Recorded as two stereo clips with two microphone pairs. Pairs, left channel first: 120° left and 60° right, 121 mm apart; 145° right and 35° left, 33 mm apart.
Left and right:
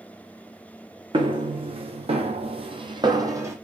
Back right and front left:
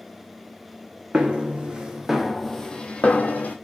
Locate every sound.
1.1 s footsteps: 15° right, 1.0 m; by 3.5 s 125° right, 0.8 m